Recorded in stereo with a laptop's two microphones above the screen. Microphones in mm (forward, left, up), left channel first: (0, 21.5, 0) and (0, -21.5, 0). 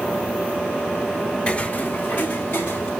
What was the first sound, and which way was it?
Footsteps, 25° left (ahead or behind).